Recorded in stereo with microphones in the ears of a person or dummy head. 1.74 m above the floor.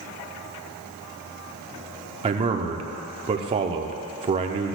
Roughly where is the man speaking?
Right.